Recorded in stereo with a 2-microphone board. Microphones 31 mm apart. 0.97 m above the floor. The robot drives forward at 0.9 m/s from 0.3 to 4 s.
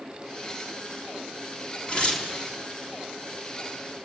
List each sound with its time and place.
1.9 s tearing paper: 35° left (ahead or behind), 2 m; by 2.3 s 30° left (ahead or behind), 2.5 m